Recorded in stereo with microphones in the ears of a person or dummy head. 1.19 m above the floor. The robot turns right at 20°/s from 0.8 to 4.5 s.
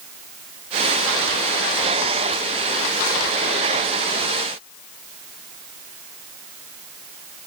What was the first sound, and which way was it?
Only background noise.